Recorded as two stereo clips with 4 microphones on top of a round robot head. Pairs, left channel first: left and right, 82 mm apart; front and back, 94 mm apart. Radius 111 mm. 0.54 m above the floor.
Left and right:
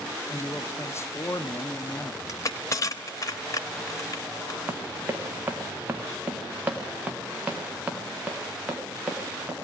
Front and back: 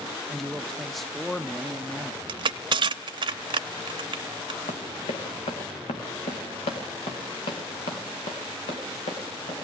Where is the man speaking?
90° left, 0.7 m.